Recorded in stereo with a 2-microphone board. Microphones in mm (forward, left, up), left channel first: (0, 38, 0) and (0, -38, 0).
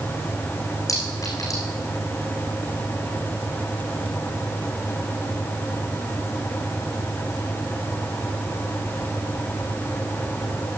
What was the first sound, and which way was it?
A clink, 45° left (ahead or behind).